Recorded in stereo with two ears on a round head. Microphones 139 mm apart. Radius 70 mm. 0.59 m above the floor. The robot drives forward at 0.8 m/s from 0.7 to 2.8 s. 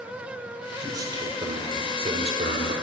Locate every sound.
0.8 s a man speaking: 25° right (ahead or behind), 2 m; by 2.7 s 50° right (ahead or behind), 1.1 m